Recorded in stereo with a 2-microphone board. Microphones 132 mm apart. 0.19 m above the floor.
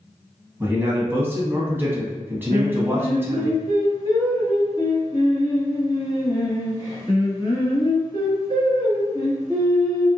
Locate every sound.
0.6 s a man speaking: 15° right (ahead or behind), 1.1 m
2.5 s singing: 30° left (ahead or behind), 1.5 m